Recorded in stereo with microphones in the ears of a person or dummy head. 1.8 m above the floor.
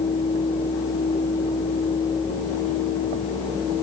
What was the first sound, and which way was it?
Only background noise.